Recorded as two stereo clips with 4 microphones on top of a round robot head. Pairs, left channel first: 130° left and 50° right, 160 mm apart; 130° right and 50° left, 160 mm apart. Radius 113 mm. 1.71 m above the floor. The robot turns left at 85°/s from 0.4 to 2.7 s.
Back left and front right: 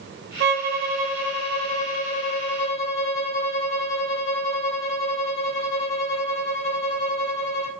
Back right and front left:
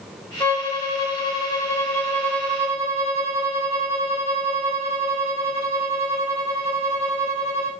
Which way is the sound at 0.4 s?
50° right.